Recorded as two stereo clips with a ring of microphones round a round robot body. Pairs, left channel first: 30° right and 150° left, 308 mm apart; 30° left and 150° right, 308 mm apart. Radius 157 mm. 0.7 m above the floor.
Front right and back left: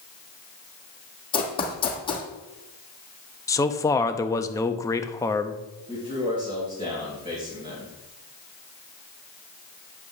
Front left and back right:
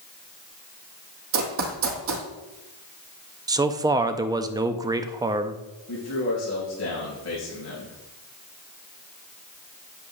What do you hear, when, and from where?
1.3 s running footsteps: 105° right, 1.7 m
3.5 s a man speaking: 90° right, 0.6 m
5.9 s a man speaking: 80° left, 3.5 m